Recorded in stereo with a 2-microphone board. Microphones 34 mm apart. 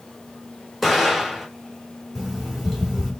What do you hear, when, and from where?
0.8 s an explosion: centre (ahead or behind), 3 m
2.1 s an alarm clock: 10° left (ahead or behind), 2.5 m